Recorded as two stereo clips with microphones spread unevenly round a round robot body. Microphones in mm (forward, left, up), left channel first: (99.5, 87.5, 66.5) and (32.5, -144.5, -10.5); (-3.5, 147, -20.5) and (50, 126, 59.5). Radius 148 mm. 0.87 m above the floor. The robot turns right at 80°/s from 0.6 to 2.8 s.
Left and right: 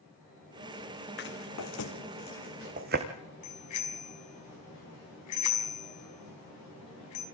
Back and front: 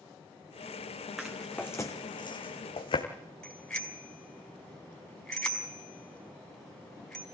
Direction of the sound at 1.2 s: 40° left.